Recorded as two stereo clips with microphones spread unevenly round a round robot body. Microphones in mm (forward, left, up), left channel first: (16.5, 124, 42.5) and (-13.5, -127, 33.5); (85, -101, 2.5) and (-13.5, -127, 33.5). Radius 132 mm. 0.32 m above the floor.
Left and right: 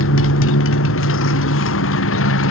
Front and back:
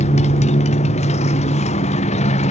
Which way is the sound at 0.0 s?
40° left.